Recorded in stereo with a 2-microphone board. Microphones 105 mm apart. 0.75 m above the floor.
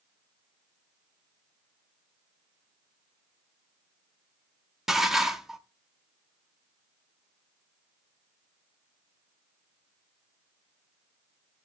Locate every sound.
4.9 s dishes clattering: 5° right (ahead or behind), 0.7 m